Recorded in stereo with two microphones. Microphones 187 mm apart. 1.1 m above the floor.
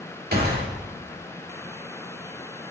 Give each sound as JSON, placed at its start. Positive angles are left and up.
{"t": 0.3, "sound": "a gunshot", "side_deg": -55, "distance_m": 2.0}